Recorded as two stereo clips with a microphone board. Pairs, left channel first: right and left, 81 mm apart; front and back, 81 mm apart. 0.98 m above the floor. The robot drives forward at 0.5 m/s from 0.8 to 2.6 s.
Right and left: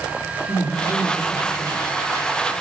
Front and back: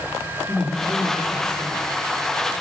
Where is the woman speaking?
105° right, 2.5 m; by 1.8 s 115° right, 2.5 m.